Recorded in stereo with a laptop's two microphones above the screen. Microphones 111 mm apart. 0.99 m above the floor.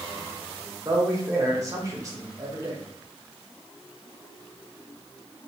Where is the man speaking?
30° right (ahead or behind), 1.0 m.